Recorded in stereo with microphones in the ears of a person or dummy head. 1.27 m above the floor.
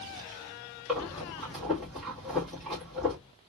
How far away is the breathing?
About 1.6 m.